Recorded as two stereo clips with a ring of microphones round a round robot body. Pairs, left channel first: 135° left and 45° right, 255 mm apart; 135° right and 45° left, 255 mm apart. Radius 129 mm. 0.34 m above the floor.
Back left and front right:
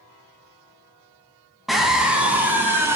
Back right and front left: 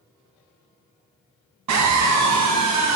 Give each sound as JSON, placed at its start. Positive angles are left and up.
{"t": 1.7, "sound": "a scream", "azimuth_deg": 45, "distance_m": 2.5}